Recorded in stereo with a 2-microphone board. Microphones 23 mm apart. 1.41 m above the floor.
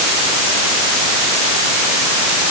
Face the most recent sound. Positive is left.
No sound to turn to.